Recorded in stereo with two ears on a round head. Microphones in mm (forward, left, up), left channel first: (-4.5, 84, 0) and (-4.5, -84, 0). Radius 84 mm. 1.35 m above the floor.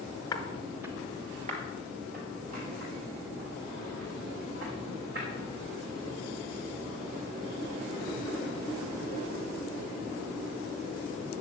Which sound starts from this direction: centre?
Footsteps, at 0.3 s.